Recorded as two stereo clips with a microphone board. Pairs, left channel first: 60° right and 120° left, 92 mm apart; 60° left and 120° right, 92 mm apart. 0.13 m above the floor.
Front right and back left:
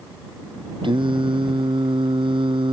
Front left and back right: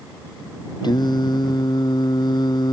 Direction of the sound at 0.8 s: 95° left.